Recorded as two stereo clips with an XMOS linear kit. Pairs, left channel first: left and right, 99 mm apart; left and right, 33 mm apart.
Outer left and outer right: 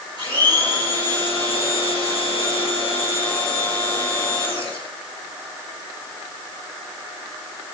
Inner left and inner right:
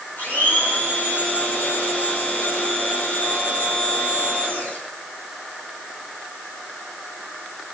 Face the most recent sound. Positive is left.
turn(degrees=55)  # may be behind; listen again after turning